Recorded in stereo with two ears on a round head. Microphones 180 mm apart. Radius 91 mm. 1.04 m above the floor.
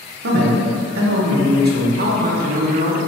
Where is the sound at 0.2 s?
55° right (ahead or behind), 0.7 m.